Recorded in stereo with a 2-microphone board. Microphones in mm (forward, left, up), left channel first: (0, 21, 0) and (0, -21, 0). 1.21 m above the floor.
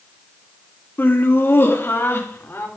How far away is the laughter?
About 2 m.